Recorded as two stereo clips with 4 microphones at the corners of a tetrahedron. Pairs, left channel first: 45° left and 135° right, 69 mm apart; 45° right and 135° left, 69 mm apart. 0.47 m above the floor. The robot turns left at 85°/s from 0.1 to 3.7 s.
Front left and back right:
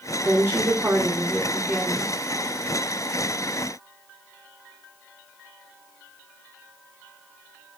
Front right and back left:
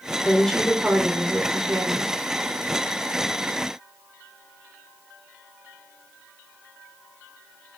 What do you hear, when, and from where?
0.2 s a woman speaking: 100° right, 1.5 m; by 2.2 s 90° left, 1.5 m